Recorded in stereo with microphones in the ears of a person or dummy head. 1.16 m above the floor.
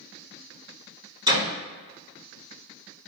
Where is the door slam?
15° right (ahead or behind), 2.0 m.